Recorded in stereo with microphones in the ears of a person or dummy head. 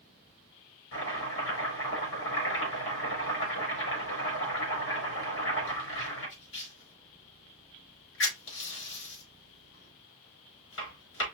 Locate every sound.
0.9 s chopping: 75° left (ahead or behind), 4 m